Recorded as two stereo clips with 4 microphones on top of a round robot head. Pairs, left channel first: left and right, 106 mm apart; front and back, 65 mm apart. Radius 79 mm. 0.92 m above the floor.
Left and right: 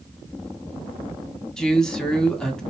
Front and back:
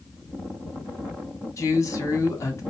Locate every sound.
1.6 s a man speaking: 5° left, 1.4 m